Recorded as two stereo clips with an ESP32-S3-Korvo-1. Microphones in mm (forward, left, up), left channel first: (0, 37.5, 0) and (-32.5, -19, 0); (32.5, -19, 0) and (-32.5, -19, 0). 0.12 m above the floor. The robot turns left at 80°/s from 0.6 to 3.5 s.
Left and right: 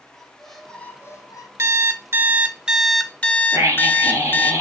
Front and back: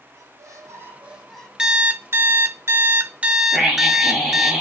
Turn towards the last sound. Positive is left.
turn(degrees=-85)